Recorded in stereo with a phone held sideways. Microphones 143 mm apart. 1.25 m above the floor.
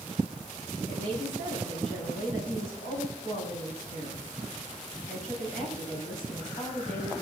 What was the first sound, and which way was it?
A woman speaking, 65° left (ahead or behind).